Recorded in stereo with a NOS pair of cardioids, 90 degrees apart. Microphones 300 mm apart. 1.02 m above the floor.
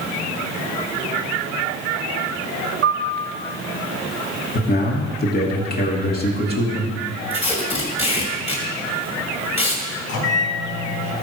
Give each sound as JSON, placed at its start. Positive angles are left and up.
{"t": 2.8, "sound": "a piano", "azimuth_deg": -55, "distance_m": 1.2}
{"t": 4.5, "sound": "a man speaking", "azimuth_deg": 30, "distance_m": 2.5}
{"t": 7.3, "sound": "tape being pulled", "azimuth_deg": 20, "distance_m": 3.0}
{"t": 10.1, "sound": "a microwave", "azimuth_deg": 55, "distance_m": 3.0}